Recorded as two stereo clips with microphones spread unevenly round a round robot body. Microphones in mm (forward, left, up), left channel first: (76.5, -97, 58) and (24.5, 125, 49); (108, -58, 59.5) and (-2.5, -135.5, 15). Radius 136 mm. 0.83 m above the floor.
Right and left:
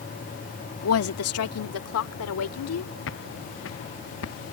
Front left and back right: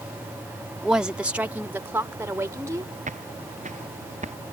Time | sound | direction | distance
0.8 | a woman speaking | 65° right | ?
3.1 | footsteps | 120° right | ?